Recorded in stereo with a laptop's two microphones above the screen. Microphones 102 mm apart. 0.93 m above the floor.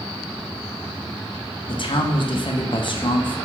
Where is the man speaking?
55° left (ahead or behind), 0.6 m.